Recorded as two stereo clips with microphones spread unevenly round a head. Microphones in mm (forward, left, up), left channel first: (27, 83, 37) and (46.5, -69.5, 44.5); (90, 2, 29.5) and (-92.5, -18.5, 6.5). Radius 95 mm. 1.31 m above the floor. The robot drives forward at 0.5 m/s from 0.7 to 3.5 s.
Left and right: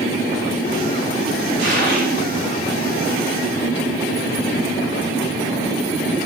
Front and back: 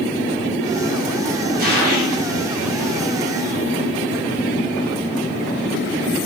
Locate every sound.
1.6 s a gunshot: 130° right, 7.5 m